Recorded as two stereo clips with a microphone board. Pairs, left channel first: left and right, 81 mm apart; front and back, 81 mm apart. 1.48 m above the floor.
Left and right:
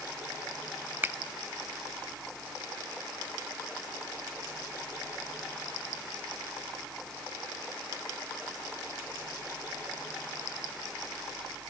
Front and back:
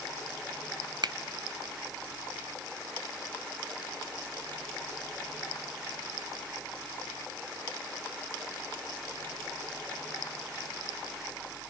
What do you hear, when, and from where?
1.0 s a finger snap: 155° right, 0.7 m